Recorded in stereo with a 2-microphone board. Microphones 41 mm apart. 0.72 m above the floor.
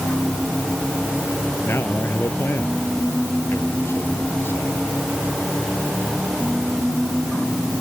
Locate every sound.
1.6 s a man speaking: 70° left (ahead or behind)